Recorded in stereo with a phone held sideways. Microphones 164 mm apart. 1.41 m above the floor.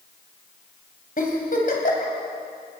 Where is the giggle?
55° left (ahead or behind), 3.5 m.